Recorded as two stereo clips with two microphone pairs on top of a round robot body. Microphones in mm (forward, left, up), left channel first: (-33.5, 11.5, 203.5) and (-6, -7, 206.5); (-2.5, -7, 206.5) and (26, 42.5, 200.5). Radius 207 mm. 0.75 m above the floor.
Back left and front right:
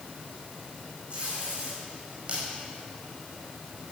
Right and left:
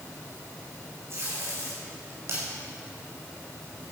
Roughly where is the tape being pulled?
Ahead.